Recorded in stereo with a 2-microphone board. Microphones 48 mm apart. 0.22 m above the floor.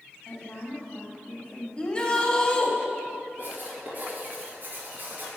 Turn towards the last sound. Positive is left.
turn(degrees=-45)  # may be behind; listen again after turning